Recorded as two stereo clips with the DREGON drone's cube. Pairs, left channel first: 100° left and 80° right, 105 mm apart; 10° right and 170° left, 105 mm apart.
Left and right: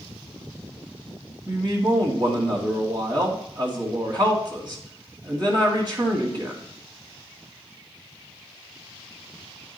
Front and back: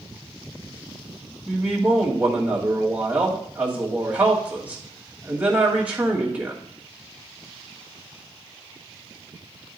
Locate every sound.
1.5 s a man speaking: 115° right, 2.5 m